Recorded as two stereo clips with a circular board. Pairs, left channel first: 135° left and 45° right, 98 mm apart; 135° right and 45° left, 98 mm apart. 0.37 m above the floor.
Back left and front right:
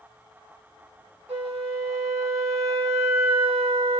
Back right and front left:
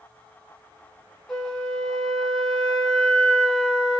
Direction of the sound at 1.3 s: 50° right.